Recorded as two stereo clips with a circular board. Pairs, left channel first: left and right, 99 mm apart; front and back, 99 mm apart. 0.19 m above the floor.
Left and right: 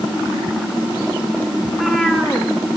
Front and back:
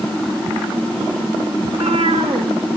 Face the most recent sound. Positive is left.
turn(degrees=180)